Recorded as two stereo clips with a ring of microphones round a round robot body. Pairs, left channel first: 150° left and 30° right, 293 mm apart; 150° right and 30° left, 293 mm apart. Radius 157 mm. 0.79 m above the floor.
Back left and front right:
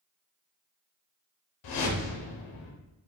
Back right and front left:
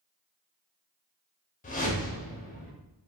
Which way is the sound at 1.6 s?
145° left.